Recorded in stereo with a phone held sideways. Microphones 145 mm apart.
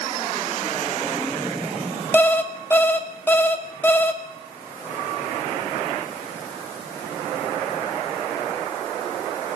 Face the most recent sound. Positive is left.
turn(degrees=15)  # may be behind; listen again after turning